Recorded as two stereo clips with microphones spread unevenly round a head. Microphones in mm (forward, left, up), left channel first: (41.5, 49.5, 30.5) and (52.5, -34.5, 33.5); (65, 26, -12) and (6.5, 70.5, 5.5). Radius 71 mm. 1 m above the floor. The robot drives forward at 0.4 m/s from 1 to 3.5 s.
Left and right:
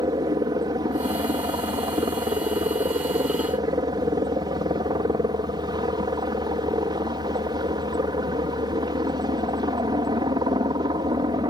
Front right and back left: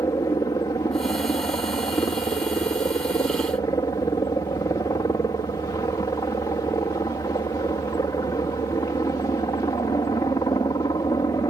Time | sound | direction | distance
0.0 | a helicopter | 75° right | ?